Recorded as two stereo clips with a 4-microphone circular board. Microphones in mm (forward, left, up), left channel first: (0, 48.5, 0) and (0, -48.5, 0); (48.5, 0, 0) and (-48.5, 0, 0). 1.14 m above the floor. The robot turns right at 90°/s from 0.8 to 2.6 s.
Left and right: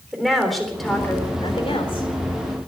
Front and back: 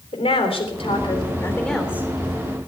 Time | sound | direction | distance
0.1 | a woman speaking | straight ahead | 3.5 m